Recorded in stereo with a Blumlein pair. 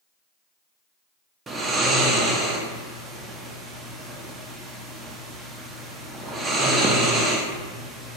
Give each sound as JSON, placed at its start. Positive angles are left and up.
{"t": 1.5, "sound": "snoring", "azimuth_deg": -15, "distance_m": 0.5}